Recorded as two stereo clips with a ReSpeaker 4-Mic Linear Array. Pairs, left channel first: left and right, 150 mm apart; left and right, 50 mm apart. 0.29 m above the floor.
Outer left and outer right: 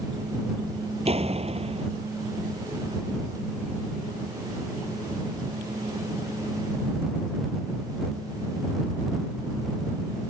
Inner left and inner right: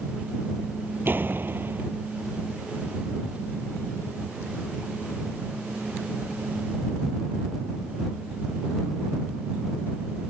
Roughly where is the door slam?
Right.